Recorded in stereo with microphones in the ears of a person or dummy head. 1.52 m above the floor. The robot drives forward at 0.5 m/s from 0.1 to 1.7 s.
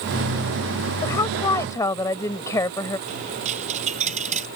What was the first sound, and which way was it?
A woman speaking, 20° left (ahead or behind).